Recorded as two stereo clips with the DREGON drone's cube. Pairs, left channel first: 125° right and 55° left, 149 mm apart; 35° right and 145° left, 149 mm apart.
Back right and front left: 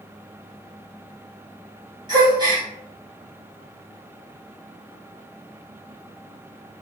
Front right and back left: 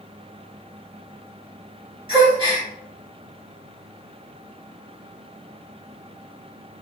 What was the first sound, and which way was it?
A gasp, 105° left.